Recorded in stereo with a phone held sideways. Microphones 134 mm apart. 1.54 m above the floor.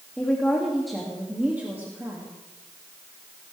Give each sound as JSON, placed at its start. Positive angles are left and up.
{"t": 0.2, "sound": "a woman speaking", "side_deg": 15, "distance_m": 2.5}